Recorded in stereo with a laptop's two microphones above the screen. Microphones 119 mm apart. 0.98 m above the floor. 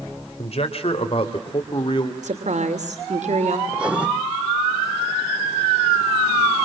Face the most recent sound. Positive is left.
turn(degrees=-10)  # may be behind; listen again after turning